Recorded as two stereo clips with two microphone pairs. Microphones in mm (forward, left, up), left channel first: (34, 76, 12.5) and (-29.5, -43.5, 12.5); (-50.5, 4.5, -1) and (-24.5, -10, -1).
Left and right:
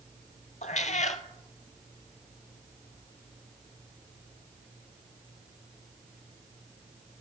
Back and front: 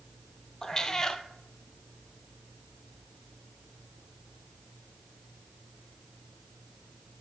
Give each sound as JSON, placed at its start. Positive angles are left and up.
{"t": 0.6, "sound": "a cat meowing", "azimuth_deg": 90, "distance_m": 0.6}